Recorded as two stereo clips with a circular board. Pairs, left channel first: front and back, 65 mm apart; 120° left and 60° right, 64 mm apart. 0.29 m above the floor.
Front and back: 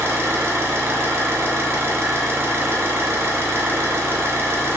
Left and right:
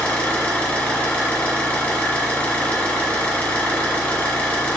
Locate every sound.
0.0 s an engine running: straight behind, 0.9 m